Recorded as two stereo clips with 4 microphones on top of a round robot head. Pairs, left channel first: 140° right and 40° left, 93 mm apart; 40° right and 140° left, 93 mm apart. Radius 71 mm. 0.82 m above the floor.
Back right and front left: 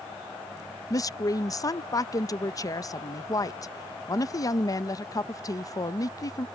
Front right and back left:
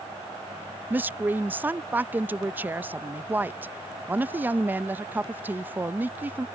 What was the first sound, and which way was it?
A woman speaking, 160° right.